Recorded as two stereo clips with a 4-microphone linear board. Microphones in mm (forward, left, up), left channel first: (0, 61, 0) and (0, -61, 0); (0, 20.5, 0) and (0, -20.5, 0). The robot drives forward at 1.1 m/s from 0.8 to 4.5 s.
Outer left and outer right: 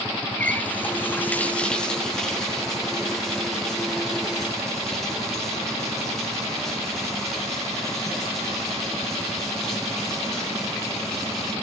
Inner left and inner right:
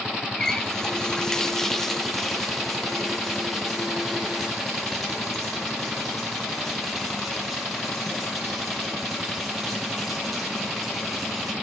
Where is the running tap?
15° left (ahead or behind), 0.5 m; by 11.5 s centre (ahead or behind), 4 m.